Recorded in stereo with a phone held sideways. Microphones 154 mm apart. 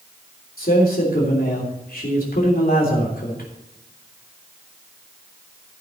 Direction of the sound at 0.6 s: 75° left (ahead or behind).